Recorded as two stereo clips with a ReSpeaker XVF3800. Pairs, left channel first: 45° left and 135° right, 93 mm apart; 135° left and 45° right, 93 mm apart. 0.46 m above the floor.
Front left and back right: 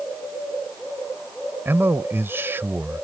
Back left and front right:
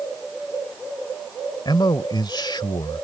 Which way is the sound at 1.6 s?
160° left.